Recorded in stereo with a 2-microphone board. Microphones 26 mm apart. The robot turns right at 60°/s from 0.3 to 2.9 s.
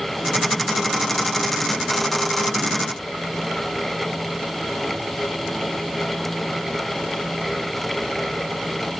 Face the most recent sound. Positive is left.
No sound to turn to.